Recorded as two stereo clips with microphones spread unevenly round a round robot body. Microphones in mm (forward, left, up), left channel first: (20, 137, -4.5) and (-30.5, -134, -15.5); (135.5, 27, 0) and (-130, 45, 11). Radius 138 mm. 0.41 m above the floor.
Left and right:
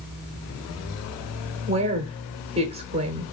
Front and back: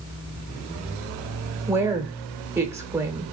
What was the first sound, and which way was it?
A woman speaking, 110° right.